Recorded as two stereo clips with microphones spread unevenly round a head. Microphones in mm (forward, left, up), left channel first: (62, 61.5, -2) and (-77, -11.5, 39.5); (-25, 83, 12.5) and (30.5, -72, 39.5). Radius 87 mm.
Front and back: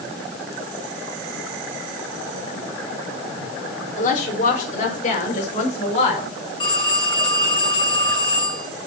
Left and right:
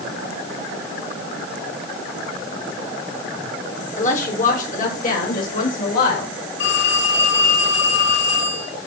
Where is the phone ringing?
90° left, 9.5 m.